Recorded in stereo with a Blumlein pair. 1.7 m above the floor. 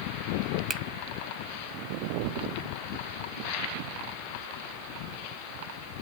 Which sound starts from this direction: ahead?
A finger snap, at 0.7 s.